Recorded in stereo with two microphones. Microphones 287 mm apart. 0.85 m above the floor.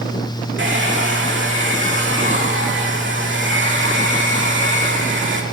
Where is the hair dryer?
45° right (ahead or behind), 2 m.